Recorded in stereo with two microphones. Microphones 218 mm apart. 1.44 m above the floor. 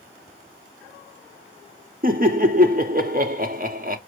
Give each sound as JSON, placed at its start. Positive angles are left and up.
{"t": 2.0, "sound": "laughter", "side_deg": -40, "distance_m": 0.6}